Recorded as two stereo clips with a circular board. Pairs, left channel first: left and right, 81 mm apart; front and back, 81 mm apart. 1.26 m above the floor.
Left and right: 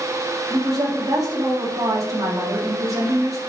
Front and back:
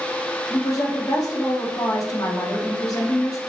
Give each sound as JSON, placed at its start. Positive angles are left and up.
{"t": 0.5, "sound": "a woman speaking", "azimuth_deg": -45, "distance_m": 2.0}